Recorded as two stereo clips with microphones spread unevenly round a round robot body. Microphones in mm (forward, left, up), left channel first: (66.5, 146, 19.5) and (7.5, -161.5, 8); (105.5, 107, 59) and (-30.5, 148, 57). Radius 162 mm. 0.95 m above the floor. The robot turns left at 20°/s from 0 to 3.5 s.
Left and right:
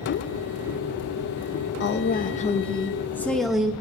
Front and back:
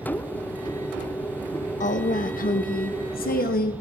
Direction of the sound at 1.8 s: 20° left.